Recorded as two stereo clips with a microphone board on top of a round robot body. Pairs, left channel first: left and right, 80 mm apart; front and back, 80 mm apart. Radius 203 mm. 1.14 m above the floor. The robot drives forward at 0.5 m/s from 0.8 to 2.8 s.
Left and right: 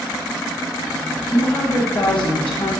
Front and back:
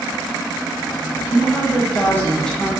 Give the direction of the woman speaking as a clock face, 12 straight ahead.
11 o'clock.